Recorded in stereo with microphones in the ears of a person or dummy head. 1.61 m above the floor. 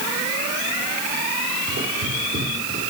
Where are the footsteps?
45° right (ahead or behind), 5 m; by 2.9 s 35° right (ahead or behind), 4.5 m.